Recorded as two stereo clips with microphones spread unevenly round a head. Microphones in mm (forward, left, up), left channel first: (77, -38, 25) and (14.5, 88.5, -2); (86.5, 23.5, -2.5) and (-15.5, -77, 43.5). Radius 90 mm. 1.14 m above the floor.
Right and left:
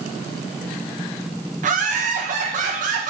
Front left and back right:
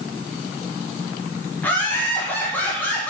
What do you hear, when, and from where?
1.6 s laughter: 115° left, 1.0 m